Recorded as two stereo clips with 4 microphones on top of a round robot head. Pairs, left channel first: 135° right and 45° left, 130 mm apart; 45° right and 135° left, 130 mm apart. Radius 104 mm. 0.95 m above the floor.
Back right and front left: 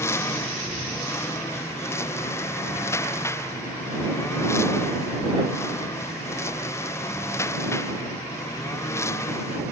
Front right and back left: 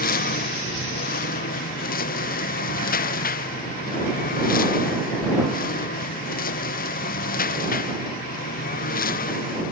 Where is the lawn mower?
60° right.